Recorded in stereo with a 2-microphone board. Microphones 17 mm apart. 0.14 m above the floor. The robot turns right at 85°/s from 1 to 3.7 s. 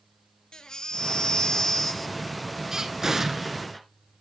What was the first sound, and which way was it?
A baby crying, 80° left.